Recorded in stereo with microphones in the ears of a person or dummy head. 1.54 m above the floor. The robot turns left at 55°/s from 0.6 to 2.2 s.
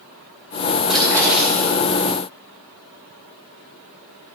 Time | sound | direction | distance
0.9 | a splash | 160° right | 5 m